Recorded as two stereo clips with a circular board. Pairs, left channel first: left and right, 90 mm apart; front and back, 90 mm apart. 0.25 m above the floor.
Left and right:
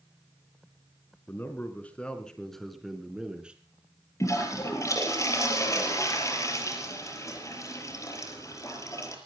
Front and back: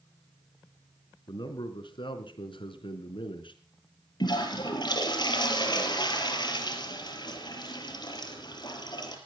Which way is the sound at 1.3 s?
25° left.